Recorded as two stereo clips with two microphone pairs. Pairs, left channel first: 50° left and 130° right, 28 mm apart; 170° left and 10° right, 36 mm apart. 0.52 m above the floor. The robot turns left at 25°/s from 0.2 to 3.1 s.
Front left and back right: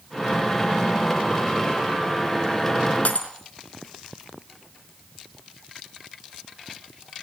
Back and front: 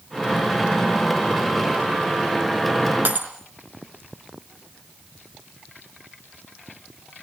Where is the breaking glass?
15° left, 4 m.